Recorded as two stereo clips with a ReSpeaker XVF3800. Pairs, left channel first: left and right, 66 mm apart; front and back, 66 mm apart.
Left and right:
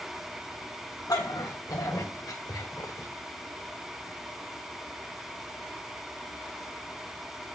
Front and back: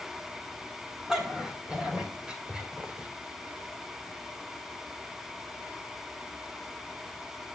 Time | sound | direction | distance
1.1 | a dog barking | 105° left | 3 m